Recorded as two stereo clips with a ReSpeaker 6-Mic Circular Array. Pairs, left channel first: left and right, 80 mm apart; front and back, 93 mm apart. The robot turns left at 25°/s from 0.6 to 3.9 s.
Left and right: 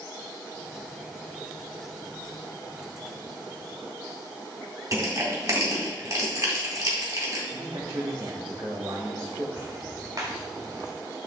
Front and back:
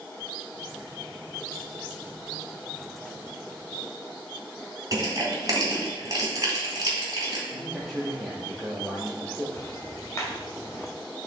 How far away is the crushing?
About 2.5 m.